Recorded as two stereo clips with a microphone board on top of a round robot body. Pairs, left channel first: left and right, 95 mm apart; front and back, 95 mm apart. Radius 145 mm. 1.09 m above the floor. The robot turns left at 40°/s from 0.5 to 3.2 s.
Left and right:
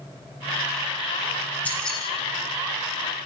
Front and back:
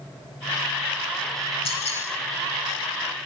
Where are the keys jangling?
15° left, 7 m; by 2.0 s straight ahead, 7 m.